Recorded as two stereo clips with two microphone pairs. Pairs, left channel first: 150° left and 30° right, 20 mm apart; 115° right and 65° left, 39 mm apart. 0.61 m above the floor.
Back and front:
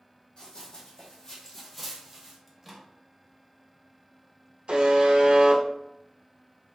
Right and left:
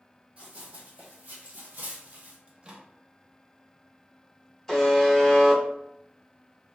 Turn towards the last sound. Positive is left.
turn(degrees=-35)